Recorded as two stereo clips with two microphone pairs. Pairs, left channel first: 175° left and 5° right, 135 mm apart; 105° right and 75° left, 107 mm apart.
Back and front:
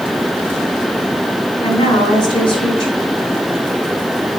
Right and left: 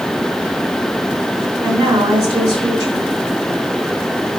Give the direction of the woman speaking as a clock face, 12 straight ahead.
8 o'clock.